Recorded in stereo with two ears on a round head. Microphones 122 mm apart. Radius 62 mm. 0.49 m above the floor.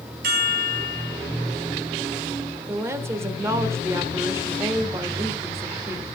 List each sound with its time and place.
0.2 s a chime: 70° right (ahead or behind), 4 m
2.7 s a woman speaking: 20° right (ahead or behind), 1.4 m